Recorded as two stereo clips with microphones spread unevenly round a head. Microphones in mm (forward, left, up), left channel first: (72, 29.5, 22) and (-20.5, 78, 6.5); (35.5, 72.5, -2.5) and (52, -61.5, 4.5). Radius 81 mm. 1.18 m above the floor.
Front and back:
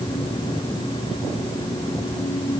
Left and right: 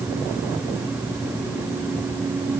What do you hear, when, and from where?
Only background noise.